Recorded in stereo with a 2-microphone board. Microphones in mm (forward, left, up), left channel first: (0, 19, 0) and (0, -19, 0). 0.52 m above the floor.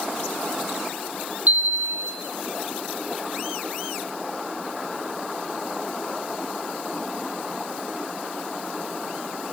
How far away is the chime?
About 6.5 m.